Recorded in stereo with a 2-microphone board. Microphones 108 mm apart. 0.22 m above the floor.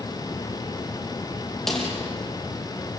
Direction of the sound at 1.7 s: 5° left (ahead or behind).